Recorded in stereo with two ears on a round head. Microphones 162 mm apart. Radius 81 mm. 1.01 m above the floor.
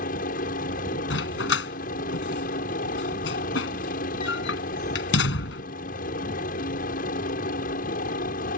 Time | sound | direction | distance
0.0 | a helicopter | 50° left (ahead or behind) | ?
1.1 | a dog barking | 70° left (ahead or behind) | ?